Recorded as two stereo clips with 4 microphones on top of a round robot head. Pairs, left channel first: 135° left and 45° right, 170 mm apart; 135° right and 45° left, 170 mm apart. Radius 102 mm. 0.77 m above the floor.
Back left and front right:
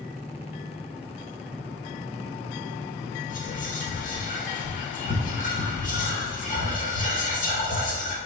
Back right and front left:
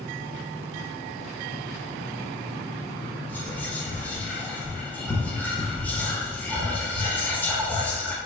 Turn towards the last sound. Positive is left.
turn(degrees=145)